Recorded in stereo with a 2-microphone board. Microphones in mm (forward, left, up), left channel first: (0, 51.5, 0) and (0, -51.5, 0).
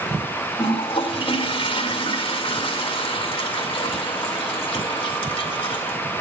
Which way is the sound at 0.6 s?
55° left (ahead or behind).